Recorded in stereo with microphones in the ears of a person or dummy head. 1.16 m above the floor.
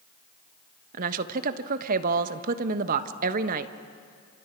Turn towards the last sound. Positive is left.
turn(degrees=-45)  # may be behind; listen again after turning